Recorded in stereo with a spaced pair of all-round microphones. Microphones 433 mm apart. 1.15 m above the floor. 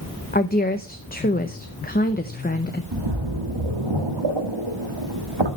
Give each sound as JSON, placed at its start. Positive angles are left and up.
{"t": 0.3, "sound": "a woman speaking", "side_deg": 20, "distance_m": 0.8}
{"t": 2.9, "sound": "a splash", "side_deg": -75, "distance_m": 1.7}